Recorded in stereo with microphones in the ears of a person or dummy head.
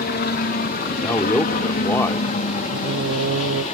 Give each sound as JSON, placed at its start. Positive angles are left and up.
{"t": 0.0, "sound": "a helicopter", "side_deg": 45}
{"t": 1.0, "sound": "a man speaking", "side_deg": 20}
{"t": 2.7, "sound": "singing", "side_deg": -70}